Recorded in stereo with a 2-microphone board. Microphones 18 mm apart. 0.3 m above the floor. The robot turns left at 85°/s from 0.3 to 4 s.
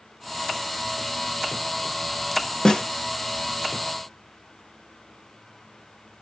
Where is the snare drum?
45° left (ahead or behind), 1.1 m; by 2.8 s 60° left (ahead or behind), 1.1 m.